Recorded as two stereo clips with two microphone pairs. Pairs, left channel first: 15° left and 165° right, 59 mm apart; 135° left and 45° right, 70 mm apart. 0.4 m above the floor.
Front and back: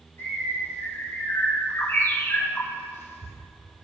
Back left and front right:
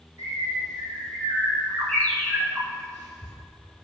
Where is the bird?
65° left, 3.5 m.